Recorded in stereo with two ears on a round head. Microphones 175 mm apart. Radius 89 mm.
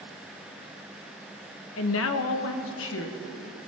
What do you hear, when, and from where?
1.8 s a woman speaking: 80° left, 0.9 m; by 3.6 s 75° left (ahead or behind), 2 m